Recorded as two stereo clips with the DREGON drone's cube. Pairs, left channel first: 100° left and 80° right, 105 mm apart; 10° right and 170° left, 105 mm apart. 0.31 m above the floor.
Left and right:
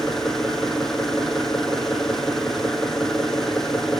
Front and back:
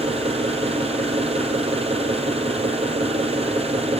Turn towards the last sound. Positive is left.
turn(degrees=-170)